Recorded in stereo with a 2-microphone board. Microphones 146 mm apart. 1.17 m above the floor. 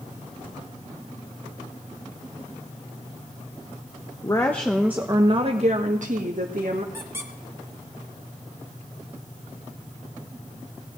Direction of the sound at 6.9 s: 20° right (ahead or behind).